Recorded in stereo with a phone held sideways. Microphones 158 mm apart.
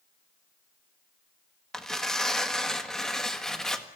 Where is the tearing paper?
5° left (ahead or behind), 1.4 m.